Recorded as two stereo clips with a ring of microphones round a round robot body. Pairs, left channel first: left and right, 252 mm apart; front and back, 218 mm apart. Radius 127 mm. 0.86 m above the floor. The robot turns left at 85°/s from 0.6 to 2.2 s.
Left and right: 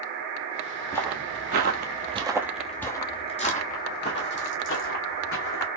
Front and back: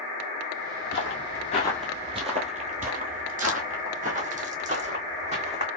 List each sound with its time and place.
0.9 s footsteps: 15° left, 1.3 m; by 5.7 s 125° left, 2 m